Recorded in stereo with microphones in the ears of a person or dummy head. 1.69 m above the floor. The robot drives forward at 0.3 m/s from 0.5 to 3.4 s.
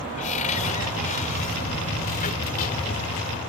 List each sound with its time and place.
0.2 s a cupboard door: 40° left (ahead or behind); by 3.2 s 45° left (ahead or behind)